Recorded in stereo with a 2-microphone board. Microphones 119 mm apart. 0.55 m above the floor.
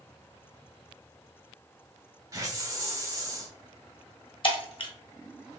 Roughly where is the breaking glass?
Left.